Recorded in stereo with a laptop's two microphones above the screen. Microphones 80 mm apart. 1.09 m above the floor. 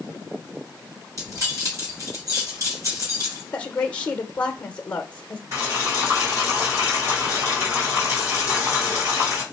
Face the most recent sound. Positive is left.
turn(degrees=-35)  # may be behind; listen again after turning